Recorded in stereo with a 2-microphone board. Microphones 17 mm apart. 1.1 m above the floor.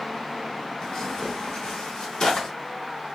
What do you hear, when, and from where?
0.8 s tearing paper: 50° left (ahead or behind), 1.3 m